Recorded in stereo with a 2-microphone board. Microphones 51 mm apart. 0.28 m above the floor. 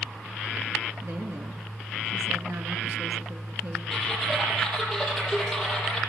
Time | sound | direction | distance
1.0 | a woman speaking | 60° right (ahead or behind) | 3.5 m
3.9 | typing on a keyboard | 5° left (ahead or behind) | 10 m